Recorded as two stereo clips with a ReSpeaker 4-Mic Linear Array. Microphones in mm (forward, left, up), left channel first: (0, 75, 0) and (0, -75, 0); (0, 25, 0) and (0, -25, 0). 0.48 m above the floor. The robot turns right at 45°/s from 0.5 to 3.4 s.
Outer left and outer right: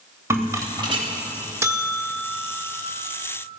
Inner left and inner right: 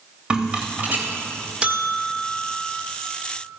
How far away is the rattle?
About 1.9 m.